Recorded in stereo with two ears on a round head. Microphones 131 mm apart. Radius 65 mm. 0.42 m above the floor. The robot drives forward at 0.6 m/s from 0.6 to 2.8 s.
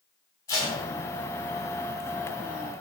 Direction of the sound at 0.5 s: 20° left (ahead or behind).